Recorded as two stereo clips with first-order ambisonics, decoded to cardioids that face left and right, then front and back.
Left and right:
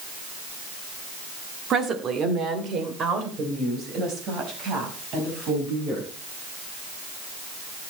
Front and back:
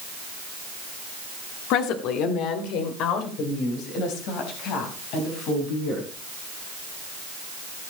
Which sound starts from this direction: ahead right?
A woman speaking, at 1.7 s.